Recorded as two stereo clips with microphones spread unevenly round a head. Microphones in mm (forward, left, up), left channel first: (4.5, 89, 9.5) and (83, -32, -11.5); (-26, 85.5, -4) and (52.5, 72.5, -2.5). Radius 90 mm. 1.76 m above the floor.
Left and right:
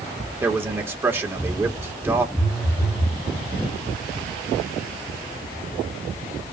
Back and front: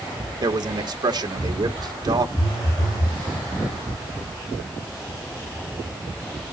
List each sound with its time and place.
0.4 s a man speaking: 20° left, 1.9 m
2.4 s a phone buzzing: 170° right, 2.5 m